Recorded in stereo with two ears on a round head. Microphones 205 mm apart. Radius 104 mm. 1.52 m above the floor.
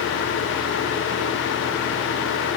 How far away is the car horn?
I don't hear a car horn.